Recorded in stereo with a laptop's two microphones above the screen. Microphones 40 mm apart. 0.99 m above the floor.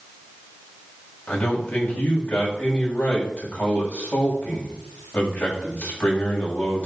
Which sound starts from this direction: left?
A man speaking, at 1.3 s.